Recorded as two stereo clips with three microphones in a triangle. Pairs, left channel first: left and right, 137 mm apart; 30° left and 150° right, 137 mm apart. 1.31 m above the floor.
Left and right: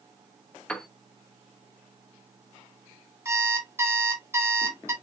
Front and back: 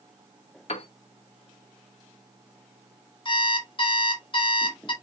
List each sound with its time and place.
0.7 s a piano: 10° left, 0.7 m
3.2 s an alarm clock: 20° right, 1.5 m